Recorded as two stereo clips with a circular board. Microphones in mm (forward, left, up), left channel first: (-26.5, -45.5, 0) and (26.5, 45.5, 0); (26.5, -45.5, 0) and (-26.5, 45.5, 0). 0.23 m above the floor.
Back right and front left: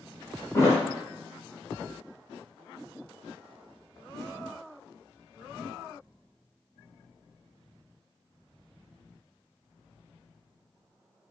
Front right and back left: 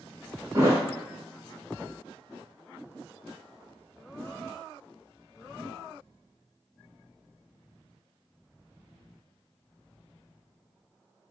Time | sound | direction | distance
0.5 | a thud | straight behind | 1.2 m